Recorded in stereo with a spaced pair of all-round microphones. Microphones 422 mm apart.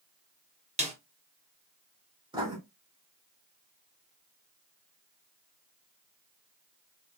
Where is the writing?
10° right (ahead or behind), 2 m.